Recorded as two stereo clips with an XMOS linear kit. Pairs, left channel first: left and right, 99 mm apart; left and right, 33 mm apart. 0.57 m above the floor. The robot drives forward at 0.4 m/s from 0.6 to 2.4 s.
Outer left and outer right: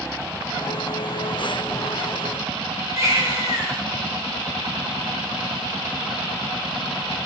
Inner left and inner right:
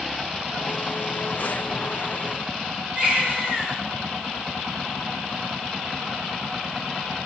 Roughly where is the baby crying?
Right.